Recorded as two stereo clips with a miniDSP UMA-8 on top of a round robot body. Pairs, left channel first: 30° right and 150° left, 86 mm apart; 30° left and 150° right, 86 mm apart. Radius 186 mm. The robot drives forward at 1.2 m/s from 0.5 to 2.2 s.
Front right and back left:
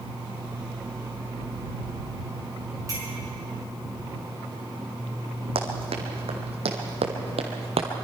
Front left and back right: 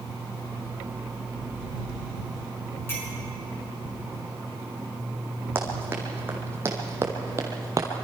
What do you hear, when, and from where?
2.9 s a clink: 95° left, 6 m
5.5 s running footsteps: 140° left, 2.5 m; by 7.9 s 155° left, 1.2 m